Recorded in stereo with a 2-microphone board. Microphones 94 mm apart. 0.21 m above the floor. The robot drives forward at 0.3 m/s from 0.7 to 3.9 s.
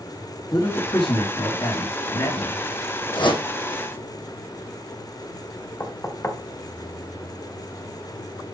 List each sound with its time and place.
0.5 s a man speaking: 55° left (ahead or behind), 3 m; by 2.7 s 60° left (ahead or behind), 3 m
3.1 s a whoosh: 65° left (ahead or behind), 2.5 m
5.8 s knocking: 30° left (ahead or behind), 1.1 m